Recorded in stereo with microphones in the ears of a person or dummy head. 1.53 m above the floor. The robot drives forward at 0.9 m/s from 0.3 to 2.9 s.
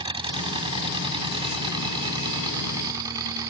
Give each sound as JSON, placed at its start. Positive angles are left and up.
{"t": 0.0, "sound": "an engine running", "side_deg": -30}